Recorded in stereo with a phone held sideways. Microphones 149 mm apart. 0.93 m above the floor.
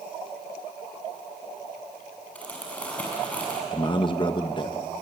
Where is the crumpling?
10° left (ahead or behind), 5.5 m.